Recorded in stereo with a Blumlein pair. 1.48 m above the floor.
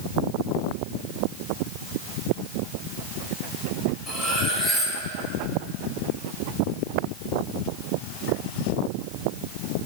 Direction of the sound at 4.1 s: 10° left.